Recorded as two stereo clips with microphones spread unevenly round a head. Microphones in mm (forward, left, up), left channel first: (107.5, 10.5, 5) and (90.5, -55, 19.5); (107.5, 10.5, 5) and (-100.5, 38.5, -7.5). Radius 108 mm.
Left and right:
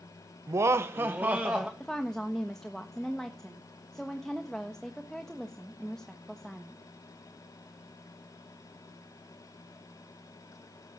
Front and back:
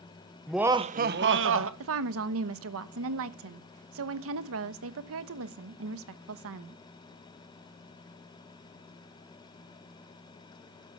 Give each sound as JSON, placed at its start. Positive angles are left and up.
{"t": 0.5, "sound": "laughter", "azimuth_deg": -95, "distance_m": 0.8}
{"t": 1.8, "sound": "a woman speaking", "azimuth_deg": 160, "distance_m": 1.1}